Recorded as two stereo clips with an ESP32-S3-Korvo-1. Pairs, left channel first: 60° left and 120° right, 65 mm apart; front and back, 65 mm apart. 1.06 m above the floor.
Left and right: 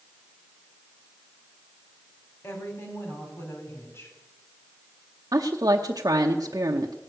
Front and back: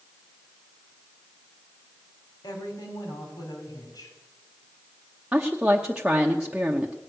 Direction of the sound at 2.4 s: 10° left.